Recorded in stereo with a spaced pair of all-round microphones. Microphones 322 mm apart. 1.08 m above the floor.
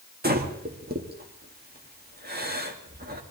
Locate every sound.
0.2 s breathing: 30° right (ahead or behind), 1.8 m